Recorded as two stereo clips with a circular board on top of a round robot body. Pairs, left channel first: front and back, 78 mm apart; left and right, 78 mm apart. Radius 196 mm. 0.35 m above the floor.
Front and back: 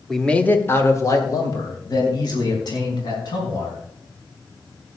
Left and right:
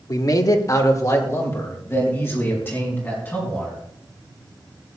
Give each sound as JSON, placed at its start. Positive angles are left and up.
{"t": 0.1, "sound": "a man speaking", "azimuth_deg": 85, "distance_m": 1.5}